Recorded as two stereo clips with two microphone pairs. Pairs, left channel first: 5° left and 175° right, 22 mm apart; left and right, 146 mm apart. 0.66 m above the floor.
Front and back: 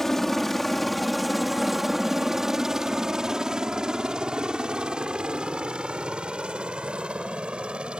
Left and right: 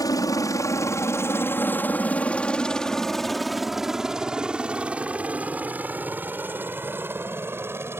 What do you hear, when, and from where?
0.0 s a helicopter: 65° left; by 8.0 s 160° right